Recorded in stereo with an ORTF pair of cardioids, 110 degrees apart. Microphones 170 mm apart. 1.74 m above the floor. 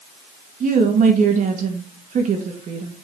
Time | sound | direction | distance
0.6 | a woman speaking | 50° right | 2 m